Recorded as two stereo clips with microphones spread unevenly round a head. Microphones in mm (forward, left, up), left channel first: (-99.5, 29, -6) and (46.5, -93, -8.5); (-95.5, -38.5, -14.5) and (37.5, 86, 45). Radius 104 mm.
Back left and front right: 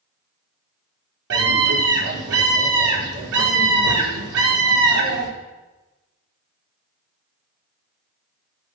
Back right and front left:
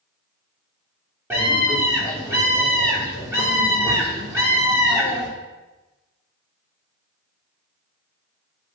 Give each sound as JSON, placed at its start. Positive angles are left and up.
{"t": 1.3, "sound": "a scream", "azimuth_deg": -40, "distance_m": 5.0}